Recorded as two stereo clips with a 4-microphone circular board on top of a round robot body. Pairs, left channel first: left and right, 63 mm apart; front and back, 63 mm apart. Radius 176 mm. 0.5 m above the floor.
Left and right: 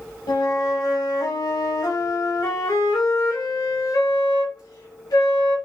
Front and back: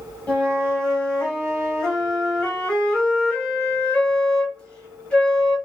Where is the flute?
75° left, 0.7 m.